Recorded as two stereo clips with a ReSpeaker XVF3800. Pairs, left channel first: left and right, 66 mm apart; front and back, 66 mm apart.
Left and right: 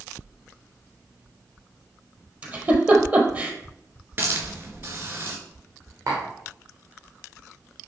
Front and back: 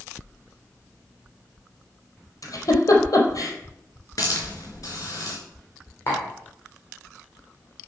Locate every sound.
2.4 s a giggle: 25° right, 1.9 m
4.2 s a hiss: 35° right, 3 m
6.1 s tapping: 55° right, 3.5 m